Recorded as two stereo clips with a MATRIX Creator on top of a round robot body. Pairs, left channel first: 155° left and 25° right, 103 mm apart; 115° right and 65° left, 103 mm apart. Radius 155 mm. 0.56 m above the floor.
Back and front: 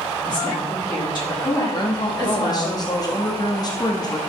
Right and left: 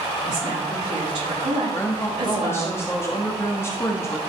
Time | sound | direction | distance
0.2 | a woman speaking | 110° left | 6 m
1.7 | a woman speaking | 170° right | 1.7 m